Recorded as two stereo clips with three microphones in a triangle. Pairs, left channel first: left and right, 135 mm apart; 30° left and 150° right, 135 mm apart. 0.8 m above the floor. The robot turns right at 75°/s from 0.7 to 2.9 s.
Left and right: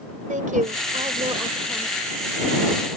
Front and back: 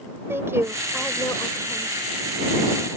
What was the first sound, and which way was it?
A woman speaking, 80° right.